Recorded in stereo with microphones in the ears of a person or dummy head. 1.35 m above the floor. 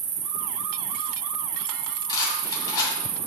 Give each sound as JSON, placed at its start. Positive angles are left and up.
{"t": 0.0, "sound": "an insect", "side_deg": -35, "distance_m": 0.8}
{"t": 2.1, "sound": "a rattle", "side_deg": 30, "distance_m": 2.5}